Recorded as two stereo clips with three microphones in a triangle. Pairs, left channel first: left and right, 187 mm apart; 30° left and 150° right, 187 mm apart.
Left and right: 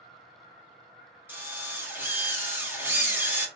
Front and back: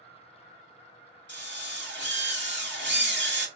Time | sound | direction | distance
1.3 | a drill | 170° right | 1.7 m